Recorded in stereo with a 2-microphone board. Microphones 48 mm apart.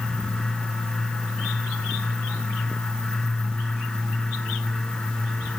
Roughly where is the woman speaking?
No woman speaking in this recording.